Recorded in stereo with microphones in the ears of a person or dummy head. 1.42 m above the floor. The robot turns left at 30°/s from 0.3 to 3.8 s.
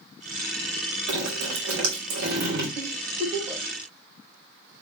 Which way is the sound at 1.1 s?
85° right.